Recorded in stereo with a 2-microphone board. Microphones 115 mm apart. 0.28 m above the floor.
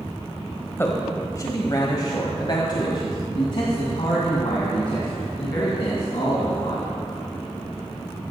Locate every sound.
0.8 s a man speaking: 20° left (ahead or behind), 1.2 m; by 6.9 s 55° left (ahead or behind), 3.5 m